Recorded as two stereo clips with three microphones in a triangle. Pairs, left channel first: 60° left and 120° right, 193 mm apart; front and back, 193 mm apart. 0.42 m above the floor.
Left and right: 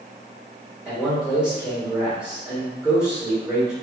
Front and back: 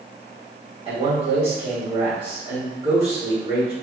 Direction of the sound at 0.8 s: 160° left.